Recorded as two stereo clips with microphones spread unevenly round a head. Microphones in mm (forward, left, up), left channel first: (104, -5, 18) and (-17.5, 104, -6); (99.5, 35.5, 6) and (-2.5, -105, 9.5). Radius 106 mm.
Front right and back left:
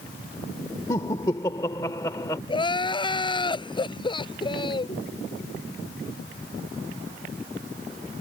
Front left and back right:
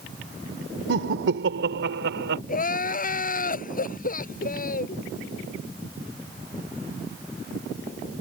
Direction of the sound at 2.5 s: 15° left.